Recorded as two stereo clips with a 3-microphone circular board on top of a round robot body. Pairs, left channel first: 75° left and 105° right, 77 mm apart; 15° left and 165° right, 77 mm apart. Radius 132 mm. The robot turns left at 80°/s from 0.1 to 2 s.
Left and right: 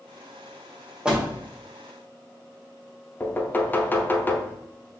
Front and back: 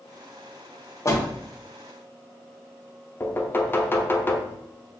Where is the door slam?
25° right, 1.0 m; by 1.2 s 45° right, 1.0 m.